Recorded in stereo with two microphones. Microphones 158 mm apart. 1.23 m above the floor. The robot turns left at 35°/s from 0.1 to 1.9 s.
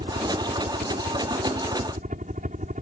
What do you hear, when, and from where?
0.0 s a helicopter: 50° right (ahead or behind); by 2.8 s 55° right (ahead or behind)